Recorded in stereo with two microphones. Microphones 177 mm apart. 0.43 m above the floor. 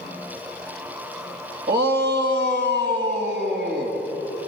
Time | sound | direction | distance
1.7 | a shout | 65° right (ahead or behind) | 2.5 m